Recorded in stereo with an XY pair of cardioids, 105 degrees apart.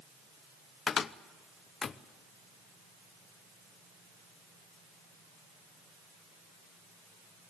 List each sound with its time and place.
0.9 s a cupboard door: 40° left, 0.7 m